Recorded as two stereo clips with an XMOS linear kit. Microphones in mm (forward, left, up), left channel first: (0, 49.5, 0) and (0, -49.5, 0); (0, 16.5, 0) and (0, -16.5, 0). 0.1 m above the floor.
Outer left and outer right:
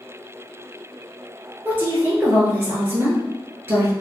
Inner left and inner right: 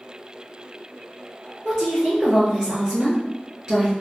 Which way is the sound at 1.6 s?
25° right (ahead or behind).